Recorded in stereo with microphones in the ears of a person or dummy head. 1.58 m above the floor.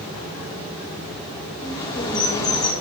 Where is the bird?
25° left (ahead or behind), 1.6 m.